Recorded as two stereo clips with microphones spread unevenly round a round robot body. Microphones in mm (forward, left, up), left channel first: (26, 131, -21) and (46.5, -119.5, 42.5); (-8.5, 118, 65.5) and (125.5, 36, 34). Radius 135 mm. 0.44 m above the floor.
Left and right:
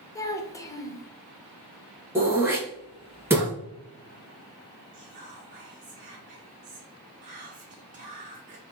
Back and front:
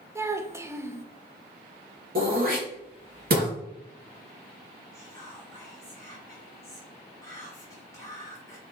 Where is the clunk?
I don't hear a clunk.